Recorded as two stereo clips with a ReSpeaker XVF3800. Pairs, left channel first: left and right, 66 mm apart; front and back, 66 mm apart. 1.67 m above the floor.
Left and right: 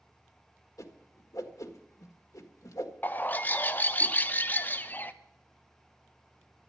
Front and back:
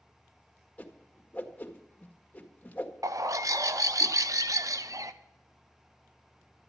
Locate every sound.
0.8 s a whoosh: 65° left, 1.6 m
3.0 s a bird: 150° left, 0.8 m